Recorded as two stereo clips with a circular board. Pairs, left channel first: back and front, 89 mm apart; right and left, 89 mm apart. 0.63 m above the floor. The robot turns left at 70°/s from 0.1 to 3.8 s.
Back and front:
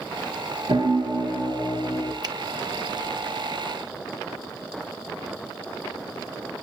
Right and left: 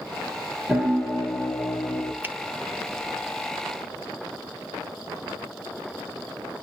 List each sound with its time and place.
0.7 s a piano: 10° left, 3 m; by 2.1 s 90° right, 3 m
2.2 s a finger snap: 25° left, 0.8 m; by 2.4 s 20° left, 0.8 m